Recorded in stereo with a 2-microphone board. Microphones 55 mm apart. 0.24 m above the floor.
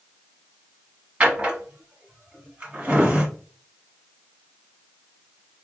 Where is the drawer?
25° right (ahead or behind), 1.3 m.